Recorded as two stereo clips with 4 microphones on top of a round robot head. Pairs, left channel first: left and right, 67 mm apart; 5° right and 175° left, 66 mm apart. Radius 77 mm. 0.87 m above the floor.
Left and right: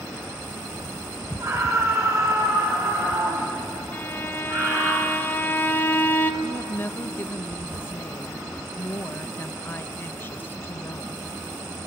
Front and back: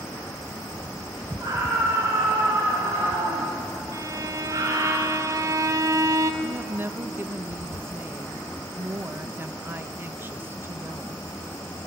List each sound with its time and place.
1.4 s a scream: 135° right, 5 m; by 4.9 s 145° right, 7 m
3.9 s a violin: 150° left, 1.6 m
6.4 s a woman speaking: 135° left, 1.0 m